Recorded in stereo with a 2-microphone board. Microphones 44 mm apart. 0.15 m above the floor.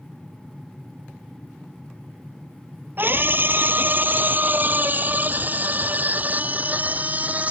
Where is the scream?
50° right (ahead or behind); by 7.5 s 35° right (ahead or behind).